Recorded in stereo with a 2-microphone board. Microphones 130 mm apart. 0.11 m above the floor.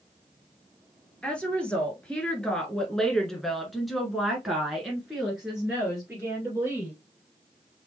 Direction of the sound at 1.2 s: 10° left (ahead or behind).